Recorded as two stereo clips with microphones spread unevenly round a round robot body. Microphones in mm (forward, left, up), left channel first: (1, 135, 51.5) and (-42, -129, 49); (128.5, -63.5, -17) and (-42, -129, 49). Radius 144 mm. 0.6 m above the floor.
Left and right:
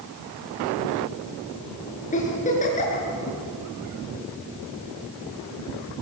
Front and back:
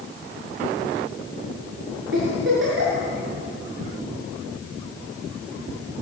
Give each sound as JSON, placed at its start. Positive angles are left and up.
{"t": 2.1, "sound": "a giggle", "azimuth_deg": 145, "distance_m": 7.0}